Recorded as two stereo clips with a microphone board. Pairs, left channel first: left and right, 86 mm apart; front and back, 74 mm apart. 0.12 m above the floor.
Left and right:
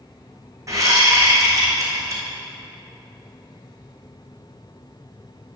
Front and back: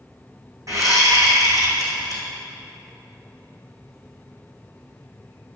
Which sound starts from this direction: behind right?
A whoosh, at 0.7 s.